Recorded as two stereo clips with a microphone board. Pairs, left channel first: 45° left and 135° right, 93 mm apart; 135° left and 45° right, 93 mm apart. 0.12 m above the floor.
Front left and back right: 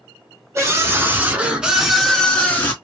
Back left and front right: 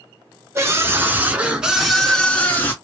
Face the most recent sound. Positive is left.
turn(degrees=90)